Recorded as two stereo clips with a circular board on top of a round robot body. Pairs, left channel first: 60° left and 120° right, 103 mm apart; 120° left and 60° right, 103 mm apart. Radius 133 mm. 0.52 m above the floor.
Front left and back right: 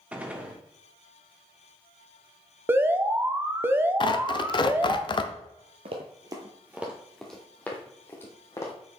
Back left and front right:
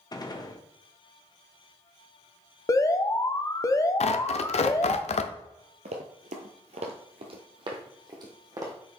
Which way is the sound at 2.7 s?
175° left.